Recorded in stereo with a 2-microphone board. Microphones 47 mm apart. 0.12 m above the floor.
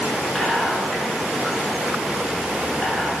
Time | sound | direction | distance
0.3 | whispering | 10° left (ahead or behind) | 1.1 m